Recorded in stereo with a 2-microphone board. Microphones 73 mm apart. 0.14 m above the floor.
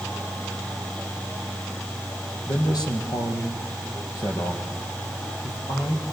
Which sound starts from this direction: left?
A man speaking, at 2.5 s.